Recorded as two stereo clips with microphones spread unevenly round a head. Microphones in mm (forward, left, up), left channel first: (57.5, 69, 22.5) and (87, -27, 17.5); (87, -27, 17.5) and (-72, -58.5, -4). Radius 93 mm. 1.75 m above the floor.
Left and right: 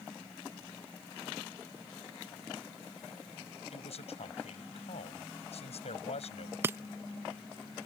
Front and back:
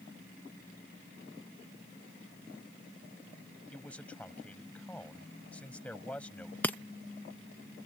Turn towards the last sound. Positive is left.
turn(degrees=-35)